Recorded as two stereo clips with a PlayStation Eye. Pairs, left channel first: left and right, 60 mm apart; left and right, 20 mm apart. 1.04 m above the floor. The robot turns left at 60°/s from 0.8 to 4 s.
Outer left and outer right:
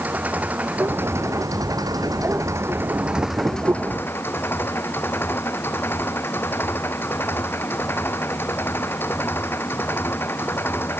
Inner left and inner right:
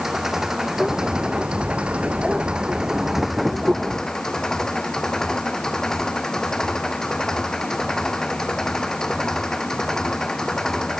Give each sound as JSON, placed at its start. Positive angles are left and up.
{"t": 0.0, "sound": "an engine running", "azimuth_deg": -25}